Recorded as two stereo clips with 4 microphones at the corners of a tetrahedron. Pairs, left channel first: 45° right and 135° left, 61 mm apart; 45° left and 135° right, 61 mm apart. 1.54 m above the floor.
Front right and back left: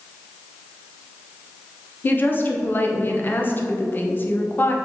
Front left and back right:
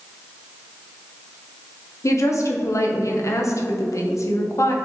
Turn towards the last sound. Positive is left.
turn(degrees=10)